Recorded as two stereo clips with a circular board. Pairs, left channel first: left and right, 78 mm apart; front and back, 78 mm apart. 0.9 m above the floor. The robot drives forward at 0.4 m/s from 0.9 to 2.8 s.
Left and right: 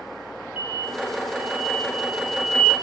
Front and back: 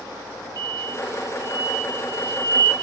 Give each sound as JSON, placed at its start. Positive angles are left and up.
{"t": 0.6, "sound": "an explosion", "azimuth_deg": -155, "distance_m": 1.3}